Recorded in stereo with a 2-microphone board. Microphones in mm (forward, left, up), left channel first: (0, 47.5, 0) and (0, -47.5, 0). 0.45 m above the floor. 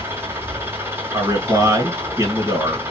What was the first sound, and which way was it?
An engine running, 25° right (ahead or behind).